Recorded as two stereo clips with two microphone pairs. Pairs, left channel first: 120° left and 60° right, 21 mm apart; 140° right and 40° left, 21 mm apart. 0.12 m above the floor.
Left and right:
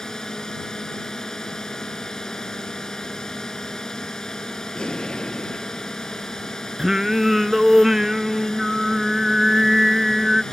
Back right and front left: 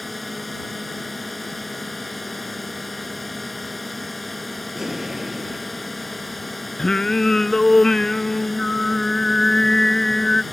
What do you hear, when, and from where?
0.0 s a drone: 140° left
4.8 s an explosion: 100° left
6.8 s singing: 110° right